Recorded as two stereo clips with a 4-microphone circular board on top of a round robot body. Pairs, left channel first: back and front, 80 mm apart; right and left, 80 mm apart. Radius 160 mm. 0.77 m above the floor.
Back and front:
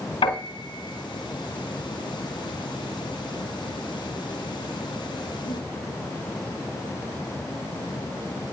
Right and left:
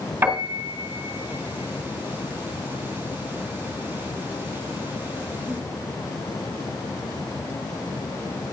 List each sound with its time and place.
0.2 s a piano: 160° left, 2.5 m